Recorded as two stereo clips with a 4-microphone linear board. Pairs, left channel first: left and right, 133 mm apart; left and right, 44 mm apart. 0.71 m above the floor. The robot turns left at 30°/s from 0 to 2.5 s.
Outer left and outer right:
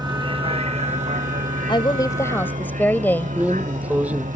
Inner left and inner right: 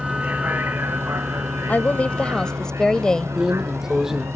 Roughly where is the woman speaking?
Left.